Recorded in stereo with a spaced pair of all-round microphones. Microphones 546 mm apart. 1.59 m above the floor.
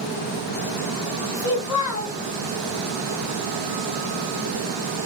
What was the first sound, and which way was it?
A child speaking, 45° left (ahead or behind).